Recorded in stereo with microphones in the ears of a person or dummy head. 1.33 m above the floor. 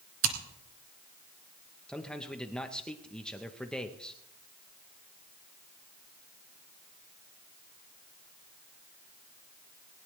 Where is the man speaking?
Centre (ahead or behind), 1.0 m.